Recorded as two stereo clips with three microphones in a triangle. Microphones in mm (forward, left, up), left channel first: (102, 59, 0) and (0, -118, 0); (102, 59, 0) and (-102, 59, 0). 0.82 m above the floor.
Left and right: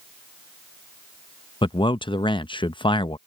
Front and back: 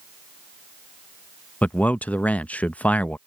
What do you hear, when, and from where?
1.6 s a man speaking: 75° left